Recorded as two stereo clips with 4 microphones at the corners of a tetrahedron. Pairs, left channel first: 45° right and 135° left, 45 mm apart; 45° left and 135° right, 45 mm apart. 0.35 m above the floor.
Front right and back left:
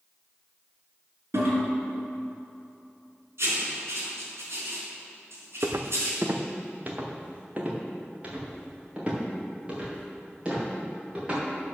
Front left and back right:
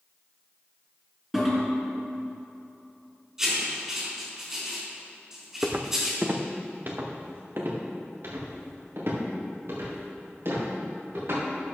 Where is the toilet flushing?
140° left, 3.5 m.